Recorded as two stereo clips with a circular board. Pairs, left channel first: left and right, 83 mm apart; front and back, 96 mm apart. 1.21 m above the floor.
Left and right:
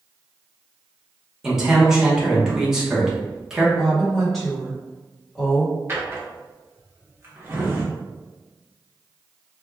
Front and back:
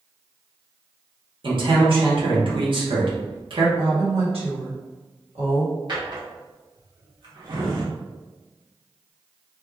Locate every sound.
1.4 s a man speaking: 170° right, 1.1 m
3.8 s a woman speaking: 175° left, 1.8 m
5.9 s a drawer: 150° right, 1.0 m